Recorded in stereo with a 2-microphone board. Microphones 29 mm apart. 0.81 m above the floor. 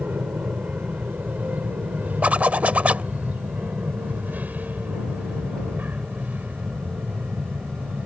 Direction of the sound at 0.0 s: 65° right (ahead or behind).